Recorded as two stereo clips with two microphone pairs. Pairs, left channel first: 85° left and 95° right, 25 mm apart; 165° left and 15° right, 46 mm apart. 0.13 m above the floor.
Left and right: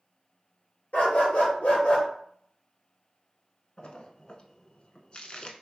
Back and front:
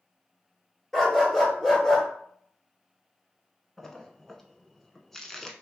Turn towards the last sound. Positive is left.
turn(degrees=90)